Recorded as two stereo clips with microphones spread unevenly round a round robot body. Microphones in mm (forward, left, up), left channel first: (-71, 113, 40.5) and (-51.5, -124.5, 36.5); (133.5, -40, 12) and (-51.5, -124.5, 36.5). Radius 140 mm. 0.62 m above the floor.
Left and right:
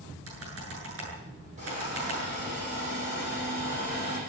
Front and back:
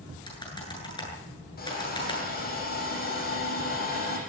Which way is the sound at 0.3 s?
45° right.